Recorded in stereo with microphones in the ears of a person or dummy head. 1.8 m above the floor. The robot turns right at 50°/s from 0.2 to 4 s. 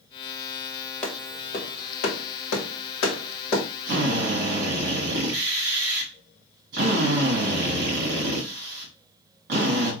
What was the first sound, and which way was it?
A clap, 10° left (ahead or behind).